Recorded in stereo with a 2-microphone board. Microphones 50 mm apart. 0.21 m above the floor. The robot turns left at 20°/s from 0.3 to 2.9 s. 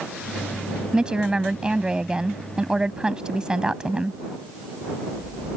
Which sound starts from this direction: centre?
A woman speaking, at 0.9 s.